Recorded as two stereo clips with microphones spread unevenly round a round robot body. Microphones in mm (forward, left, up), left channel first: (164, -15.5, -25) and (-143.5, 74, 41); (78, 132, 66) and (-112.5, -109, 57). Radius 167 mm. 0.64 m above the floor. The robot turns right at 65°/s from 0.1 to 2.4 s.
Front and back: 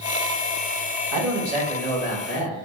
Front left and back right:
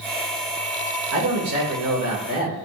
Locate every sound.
1.1 s a man speaking: 150° right, 2 m; by 2.6 s 70° right, 2 m